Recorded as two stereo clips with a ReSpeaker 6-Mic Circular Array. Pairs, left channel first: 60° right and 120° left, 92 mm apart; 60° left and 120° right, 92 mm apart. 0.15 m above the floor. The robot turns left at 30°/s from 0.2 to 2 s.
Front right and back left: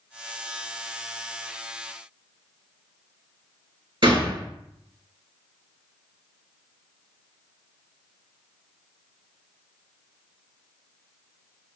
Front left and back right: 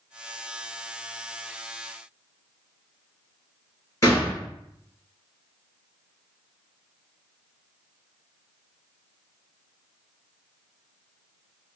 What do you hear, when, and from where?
4.0 s a gunshot: 110° left, 2.5 m